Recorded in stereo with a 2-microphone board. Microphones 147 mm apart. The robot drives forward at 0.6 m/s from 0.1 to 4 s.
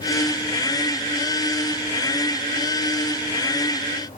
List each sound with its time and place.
Only background noise.